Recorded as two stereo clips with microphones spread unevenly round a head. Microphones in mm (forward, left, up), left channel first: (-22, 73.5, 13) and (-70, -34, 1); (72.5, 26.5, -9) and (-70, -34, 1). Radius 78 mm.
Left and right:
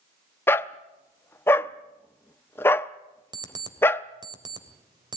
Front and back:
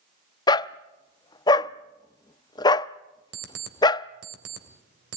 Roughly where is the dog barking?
Ahead left.